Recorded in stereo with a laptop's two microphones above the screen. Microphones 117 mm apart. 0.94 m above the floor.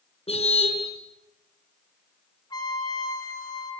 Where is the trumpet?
40° left (ahead or behind), 5 m.